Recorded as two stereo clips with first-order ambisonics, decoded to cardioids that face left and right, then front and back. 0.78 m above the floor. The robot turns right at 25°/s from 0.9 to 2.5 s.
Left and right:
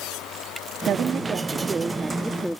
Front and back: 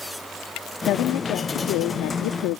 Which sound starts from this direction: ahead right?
A woman speaking, at 0.9 s.